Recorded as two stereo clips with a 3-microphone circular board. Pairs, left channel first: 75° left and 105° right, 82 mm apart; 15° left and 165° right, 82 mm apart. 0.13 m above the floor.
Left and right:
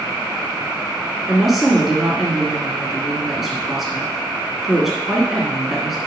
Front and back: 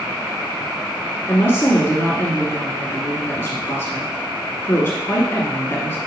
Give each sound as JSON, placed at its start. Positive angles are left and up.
{"t": 1.3, "sound": "a woman speaking", "azimuth_deg": -20, "distance_m": 1.8}